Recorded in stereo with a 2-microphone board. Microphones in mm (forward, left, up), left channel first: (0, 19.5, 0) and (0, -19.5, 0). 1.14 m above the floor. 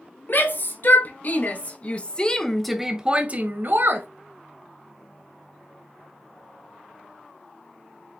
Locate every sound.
0.3 s a shout: 55° left (ahead or behind), 2 m; by 4.1 s 60° right (ahead or behind), 1.2 m